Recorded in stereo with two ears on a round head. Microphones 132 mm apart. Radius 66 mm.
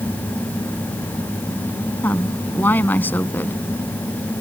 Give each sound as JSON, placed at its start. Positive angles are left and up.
{"t": 2.0, "sound": "a woman speaking", "side_deg": 15}